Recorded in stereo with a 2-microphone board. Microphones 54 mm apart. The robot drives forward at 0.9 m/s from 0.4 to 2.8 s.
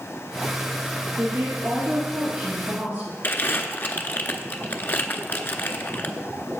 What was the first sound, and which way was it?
A woman speaking, 45° right (ahead or behind).